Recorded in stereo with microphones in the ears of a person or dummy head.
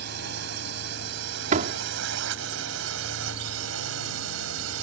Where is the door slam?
40° right (ahead or behind).